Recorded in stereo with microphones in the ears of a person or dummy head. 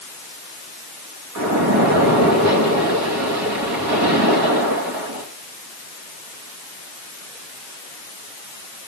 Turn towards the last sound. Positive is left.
turn(degrees=-90)